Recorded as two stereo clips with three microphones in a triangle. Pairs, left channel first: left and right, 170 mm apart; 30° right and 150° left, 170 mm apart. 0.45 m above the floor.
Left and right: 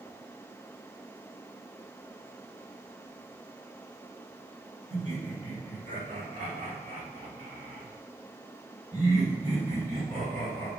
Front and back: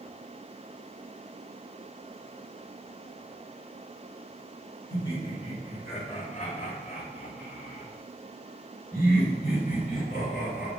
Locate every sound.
4.9 s laughter: 90° right, 1.2 m; by 10.7 s 50° right, 4 m